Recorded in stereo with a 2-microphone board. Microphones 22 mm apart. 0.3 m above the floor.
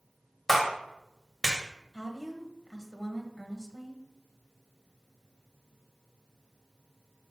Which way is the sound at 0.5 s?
5° left (ahead or behind).